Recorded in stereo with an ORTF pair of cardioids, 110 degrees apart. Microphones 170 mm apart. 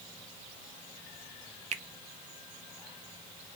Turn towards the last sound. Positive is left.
turn(degrees=-45)